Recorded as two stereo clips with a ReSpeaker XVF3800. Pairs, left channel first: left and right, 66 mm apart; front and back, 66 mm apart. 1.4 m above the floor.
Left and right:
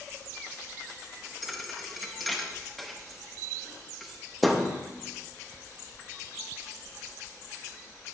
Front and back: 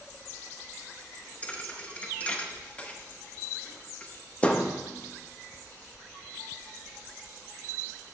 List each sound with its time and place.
1.4 s a thud: 5° left, 0.7 m